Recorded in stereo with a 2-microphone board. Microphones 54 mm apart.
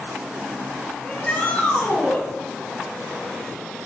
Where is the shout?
25° left (ahead or behind), 4 m.